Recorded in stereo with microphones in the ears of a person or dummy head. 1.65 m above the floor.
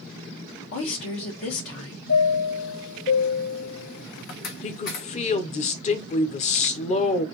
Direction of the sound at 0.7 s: 65° left (ahead or behind).